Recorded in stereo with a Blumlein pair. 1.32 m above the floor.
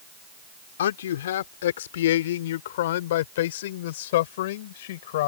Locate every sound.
0.8 s a man speaking: 60° left; by 5.3 s 55° left